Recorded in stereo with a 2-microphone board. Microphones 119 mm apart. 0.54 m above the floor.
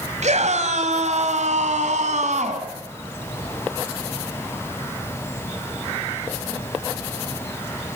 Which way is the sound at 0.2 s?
75° right (ahead or behind).